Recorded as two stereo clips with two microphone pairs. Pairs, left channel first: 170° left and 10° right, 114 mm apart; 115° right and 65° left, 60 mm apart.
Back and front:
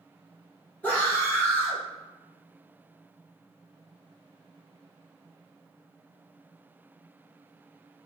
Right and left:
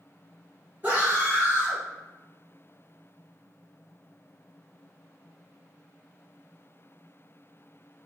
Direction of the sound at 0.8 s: 100° left.